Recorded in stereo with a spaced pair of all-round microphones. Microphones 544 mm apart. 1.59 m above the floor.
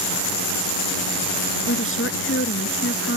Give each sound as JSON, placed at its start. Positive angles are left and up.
{"t": 1.7, "sound": "a woman speaking", "side_deg": 20}